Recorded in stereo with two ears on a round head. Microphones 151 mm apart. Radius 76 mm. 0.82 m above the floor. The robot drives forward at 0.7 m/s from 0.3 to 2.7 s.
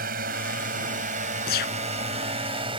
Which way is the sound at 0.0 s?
60° right (ahead or behind).